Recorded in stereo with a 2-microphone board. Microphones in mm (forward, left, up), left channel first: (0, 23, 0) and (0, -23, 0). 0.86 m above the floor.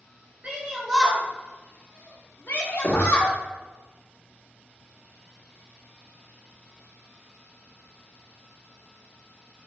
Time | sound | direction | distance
0.4 | a shout | 30° right (ahead or behind) | 1.2 m
2.8 | knocking | 50° left (ahead or behind) | 1.0 m